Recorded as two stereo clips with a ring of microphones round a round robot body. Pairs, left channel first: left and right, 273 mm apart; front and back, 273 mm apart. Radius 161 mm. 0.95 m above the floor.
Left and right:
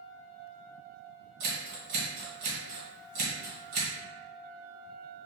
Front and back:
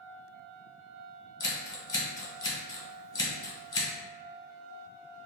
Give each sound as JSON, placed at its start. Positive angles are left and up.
{"t": 1.4, "sound": "scissors", "azimuth_deg": -75, "distance_m": 1.7}